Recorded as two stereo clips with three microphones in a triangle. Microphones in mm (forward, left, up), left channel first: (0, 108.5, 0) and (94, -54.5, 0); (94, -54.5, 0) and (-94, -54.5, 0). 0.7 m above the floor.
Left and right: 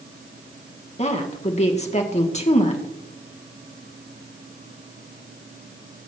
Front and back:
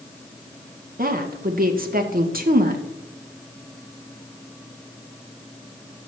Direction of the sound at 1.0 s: 165° left.